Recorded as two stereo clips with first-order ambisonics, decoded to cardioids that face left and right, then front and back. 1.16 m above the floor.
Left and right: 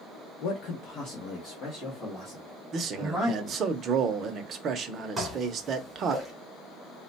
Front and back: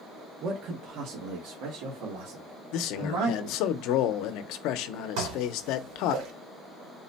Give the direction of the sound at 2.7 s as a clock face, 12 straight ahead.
1 o'clock.